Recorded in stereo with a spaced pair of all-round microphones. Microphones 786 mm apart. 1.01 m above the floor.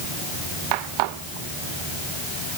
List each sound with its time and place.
Only background noise.